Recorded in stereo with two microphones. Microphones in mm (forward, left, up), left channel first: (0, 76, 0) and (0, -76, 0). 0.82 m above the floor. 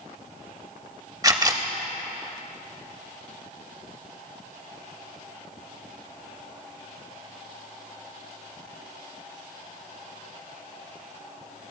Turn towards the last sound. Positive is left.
turn(degrees=-25)  # may be behind; listen again after turning